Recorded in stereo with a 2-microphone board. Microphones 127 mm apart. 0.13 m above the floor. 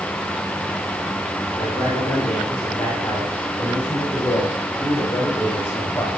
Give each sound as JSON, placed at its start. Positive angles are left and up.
{"t": 1.6, "sound": "a man speaking", "side_deg": 10, "distance_m": 9.0}